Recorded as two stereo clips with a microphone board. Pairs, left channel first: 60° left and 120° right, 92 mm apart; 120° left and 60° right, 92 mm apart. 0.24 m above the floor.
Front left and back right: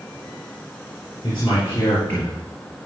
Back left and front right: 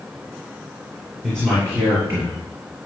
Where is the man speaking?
10° left, 5 m; by 2.3 s 10° right, 5 m.